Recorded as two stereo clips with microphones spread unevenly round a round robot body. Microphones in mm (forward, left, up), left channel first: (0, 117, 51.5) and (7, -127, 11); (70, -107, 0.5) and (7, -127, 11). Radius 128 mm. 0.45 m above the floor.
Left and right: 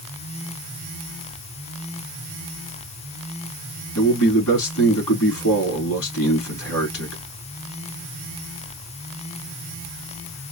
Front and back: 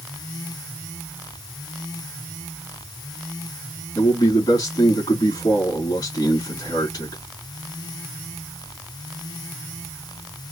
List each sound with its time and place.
4.0 s a man speaking: 55° left, 3.5 m